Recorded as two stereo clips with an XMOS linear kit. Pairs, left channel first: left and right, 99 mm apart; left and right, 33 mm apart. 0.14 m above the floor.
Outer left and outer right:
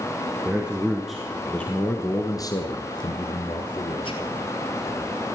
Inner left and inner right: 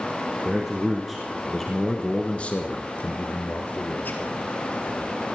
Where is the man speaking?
15° right (ahead or behind), 2.5 m; by 4.3 s 60° left (ahead or behind), 3 m.